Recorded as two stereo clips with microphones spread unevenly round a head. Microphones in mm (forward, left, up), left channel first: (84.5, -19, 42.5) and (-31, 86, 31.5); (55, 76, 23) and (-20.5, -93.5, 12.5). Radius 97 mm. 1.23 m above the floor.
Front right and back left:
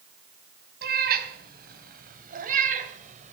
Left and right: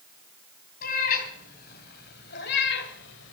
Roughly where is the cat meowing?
Behind left.